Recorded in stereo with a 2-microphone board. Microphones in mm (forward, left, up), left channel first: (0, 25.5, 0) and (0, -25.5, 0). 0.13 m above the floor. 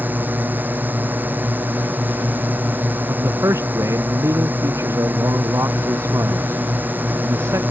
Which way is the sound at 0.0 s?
40° right (ahead or behind).